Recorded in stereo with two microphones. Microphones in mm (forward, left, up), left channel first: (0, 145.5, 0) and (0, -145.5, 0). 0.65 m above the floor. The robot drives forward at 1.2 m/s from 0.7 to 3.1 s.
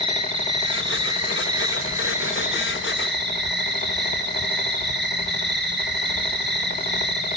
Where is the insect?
70° right (ahead or behind), 2.5 m; by 7.4 s 35° right (ahead or behind), 4 m.